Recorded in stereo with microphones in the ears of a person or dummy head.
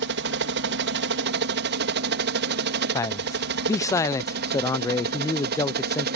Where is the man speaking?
15° left (ahead or behind).